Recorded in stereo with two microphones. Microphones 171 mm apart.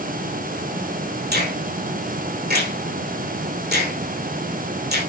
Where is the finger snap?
70° right (ahead or behind), 9 m.